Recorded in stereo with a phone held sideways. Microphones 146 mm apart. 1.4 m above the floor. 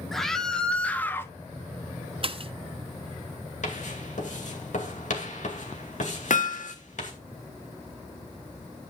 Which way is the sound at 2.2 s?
45° right (ahead or behind).